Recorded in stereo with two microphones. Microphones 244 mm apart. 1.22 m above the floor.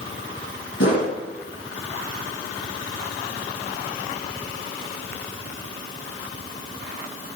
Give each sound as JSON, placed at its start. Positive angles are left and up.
{"t": 0.8, "sound": "a whoosh", "side_deg": 55, "distance_m": 3.5}